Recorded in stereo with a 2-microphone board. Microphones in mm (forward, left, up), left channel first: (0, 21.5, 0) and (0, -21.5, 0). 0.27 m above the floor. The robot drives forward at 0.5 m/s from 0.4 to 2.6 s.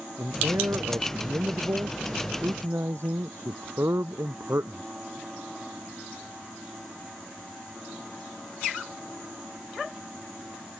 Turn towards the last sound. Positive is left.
turn(degrees=-85)